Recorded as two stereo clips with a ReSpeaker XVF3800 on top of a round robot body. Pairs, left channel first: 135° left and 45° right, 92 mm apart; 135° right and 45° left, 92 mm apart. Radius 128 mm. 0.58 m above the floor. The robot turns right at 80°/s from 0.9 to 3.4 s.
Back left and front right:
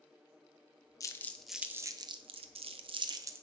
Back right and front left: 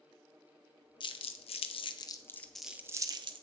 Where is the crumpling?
170° right, 0.7 m; by 3.4 s 20° left, 0.7 m.